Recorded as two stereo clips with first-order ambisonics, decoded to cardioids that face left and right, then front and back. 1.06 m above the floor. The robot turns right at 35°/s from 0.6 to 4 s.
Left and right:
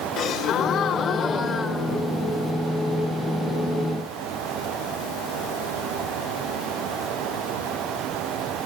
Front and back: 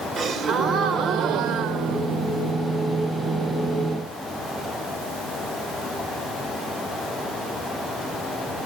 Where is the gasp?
130° left, 1.0 m; by 2.5 s 165° right, 1.0 m.